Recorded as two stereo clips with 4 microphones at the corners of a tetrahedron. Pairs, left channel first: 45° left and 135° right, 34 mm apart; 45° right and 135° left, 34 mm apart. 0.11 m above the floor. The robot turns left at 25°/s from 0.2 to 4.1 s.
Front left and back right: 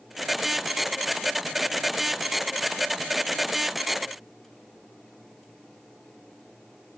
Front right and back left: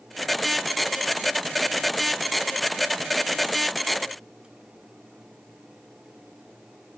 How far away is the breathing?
No breathing in this recording.